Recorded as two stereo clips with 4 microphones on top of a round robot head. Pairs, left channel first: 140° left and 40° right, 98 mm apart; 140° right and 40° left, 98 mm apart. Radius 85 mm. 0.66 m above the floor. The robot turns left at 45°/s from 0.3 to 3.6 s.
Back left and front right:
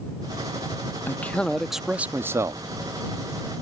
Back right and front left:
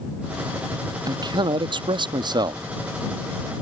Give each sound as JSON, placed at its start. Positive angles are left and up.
{"t": 1.1, "sound": "a man speaking", "azimuth_deg": 75}